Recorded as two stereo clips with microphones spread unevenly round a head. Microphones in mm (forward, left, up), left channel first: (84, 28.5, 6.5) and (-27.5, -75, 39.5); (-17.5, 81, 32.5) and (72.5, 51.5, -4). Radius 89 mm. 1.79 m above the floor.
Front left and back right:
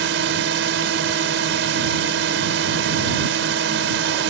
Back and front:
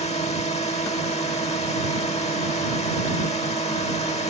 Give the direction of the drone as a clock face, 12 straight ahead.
5 o'clock.